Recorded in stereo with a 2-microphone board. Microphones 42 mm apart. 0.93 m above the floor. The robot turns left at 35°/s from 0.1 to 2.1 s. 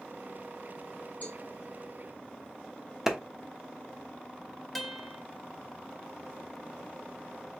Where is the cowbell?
45° left (ahead or behind), 1.8 m; by 1.4 s 40° left (ahead or behind), 1.8 m.